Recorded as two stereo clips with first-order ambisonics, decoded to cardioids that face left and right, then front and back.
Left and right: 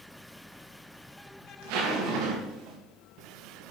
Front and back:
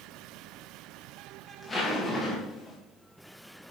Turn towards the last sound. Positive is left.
turn(degrees=-75)